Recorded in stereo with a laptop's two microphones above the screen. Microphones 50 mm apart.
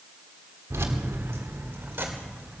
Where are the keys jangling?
75° right (ahead or behind), 1.6 m; by 2.6 s 40° right (ahead or behind), 2.5 m.